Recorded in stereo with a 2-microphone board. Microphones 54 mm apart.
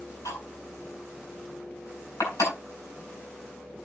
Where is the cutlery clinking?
85° left, 8 m.